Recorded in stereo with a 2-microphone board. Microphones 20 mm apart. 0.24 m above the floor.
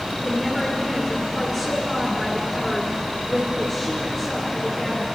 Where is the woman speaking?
5° right (ahead or behind), 2.5 m.